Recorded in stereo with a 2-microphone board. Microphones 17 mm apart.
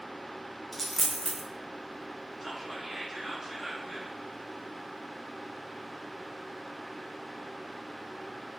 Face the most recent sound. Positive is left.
turn(degrees=-10)  # may be behind; listen again after turning